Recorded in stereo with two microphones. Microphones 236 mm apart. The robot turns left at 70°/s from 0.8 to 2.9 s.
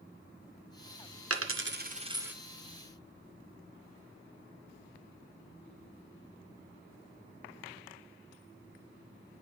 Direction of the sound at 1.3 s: 75° right (ahead or behind).